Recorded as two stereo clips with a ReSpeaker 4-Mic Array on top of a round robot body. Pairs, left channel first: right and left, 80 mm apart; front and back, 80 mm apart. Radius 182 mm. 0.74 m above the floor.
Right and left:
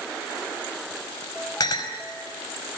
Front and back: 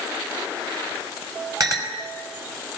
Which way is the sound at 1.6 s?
135° right.